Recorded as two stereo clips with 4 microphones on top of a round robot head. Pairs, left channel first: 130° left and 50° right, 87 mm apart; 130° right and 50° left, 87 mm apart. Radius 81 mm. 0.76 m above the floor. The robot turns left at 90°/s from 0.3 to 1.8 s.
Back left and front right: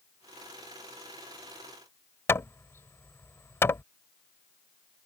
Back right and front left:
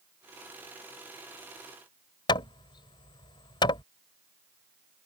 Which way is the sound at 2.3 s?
165° right.